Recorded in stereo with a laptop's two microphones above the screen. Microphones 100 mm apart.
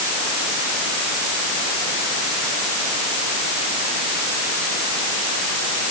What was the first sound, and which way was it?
Only background noise.